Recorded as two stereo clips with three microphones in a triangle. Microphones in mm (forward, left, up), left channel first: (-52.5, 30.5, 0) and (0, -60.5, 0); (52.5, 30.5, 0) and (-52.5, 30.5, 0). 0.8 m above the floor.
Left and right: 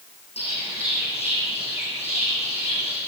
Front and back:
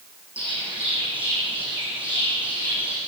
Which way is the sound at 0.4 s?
105° left.